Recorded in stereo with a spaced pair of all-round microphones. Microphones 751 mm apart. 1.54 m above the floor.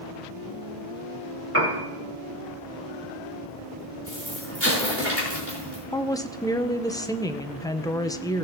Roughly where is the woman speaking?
Centre.